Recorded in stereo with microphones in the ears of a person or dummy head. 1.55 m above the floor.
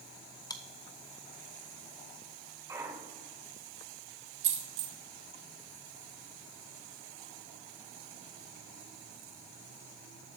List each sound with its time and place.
0.5 s chewing: 20° left (ahead or behind), 0.6 m
2.7 s a clunk: 20° right (ahead or behind), 3 m
4.4 s a dropped coin: 35° right (ahead or behind), 2 m